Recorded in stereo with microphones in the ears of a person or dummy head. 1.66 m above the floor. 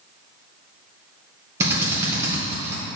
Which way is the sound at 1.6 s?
15° right (ahead or behind).